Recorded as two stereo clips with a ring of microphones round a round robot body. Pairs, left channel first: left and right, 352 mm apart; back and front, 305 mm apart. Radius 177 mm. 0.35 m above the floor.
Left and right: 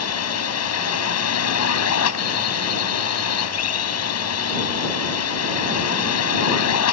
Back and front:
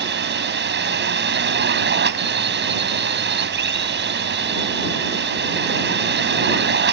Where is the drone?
50° left.